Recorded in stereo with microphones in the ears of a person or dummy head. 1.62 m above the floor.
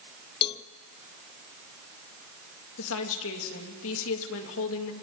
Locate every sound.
0.4 s a cowbell: 30° left (ahead or behind), 0.5 m
2.8 s a woman speaking: 80° left, 3 m